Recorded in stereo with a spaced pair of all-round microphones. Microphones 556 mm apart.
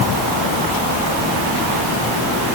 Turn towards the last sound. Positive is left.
No sound to turn to.